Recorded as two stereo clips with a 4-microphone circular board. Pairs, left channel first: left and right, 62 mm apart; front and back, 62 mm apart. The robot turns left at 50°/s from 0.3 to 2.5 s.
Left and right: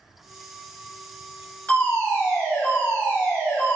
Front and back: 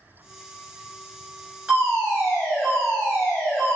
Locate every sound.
1.7 s a fire alarm: 130° left, 1.9 m; by 3.8 s 90° left, 1.9 m